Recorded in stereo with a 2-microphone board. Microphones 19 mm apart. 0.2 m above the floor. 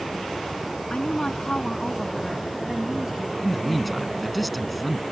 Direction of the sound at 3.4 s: 10° left (ahead or behind).